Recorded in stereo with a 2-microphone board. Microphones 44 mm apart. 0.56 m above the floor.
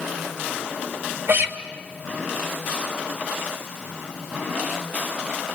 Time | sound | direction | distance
1.3 | a guitar | 65° right (ahead or behind) | 1.9 m